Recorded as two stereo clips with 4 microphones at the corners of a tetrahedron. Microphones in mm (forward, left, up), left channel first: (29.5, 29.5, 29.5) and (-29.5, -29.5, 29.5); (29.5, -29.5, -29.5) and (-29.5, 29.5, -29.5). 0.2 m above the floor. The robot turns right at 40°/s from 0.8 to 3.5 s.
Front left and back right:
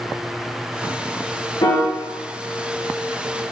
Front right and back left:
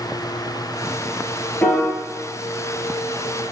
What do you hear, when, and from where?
1.6 s a piano: 25° left, 1.2 m; by 1.9 s 35° left, 1.2 m